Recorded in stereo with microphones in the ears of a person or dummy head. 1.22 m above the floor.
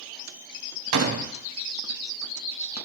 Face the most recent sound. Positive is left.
turn(degrees=-70)  # may be behind; listen again after turning